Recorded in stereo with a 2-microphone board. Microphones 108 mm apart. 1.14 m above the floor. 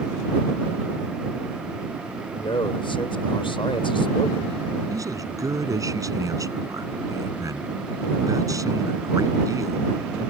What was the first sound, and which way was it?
A man speaking, 55° left (ahead or behind).